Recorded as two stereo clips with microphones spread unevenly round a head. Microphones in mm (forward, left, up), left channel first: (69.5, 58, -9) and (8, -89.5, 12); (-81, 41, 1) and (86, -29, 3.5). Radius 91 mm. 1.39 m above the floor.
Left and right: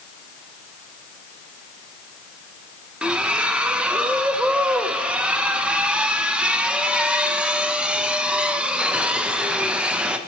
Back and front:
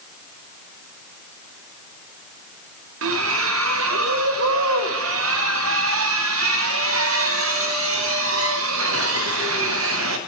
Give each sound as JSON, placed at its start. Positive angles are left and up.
{"t": 3.0, "sound": "a splash", "azimuth_deg": -30, "distance_m": 1.0}